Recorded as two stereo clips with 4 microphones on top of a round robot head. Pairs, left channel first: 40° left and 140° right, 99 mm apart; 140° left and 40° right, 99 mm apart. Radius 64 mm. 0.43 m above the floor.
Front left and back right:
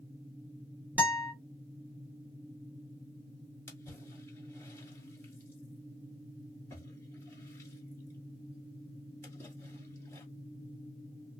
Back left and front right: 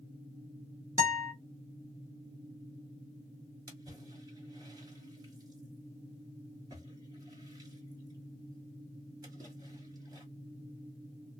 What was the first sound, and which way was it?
A guitar, 75° right.